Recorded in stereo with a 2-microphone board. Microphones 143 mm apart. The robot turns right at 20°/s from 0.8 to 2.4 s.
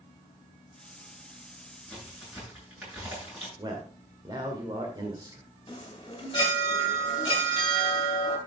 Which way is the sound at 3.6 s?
30° right (ahead or behind).